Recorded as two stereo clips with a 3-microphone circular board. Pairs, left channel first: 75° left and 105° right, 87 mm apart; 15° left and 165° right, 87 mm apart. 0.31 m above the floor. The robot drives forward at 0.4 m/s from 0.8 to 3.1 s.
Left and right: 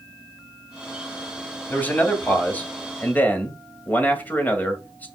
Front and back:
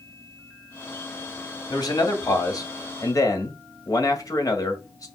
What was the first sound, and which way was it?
A man speaking, 10° left.